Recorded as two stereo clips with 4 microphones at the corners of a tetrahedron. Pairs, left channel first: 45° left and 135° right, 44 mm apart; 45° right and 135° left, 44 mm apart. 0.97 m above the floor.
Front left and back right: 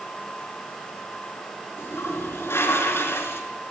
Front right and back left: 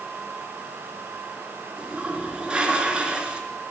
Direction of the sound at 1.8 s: 65° left.